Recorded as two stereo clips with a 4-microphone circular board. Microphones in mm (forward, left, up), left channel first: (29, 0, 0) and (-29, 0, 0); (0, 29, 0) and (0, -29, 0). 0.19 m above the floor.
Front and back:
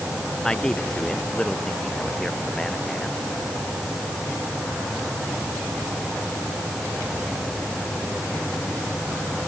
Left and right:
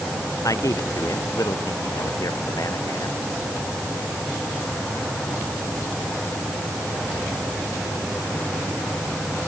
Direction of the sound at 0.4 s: 80° left.